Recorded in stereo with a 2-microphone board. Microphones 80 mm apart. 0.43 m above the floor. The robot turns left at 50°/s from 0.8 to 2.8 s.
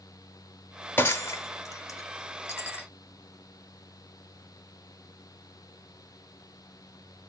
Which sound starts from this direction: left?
Breaking glass, at 1.0 s.